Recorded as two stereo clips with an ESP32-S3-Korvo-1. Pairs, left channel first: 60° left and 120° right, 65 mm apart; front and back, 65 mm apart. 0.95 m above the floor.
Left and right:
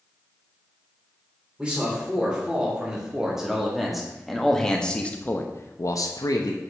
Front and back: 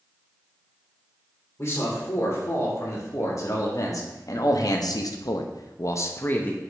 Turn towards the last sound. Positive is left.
turn(degrees=65)